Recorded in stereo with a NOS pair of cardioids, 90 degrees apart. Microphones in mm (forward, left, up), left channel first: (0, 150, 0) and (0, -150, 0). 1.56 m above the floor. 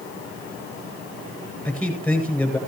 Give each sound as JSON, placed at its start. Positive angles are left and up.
{"t": 1.6, "sound": "a man speaking", "azimuth_deg": 5, "distance_m": 9.0}